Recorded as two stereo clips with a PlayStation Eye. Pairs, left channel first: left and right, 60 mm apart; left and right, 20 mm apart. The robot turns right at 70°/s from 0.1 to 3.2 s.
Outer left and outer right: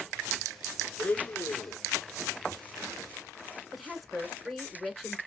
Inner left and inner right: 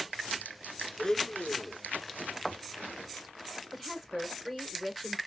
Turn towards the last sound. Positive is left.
turn(degrees=0)  # may be behind; listen again after turning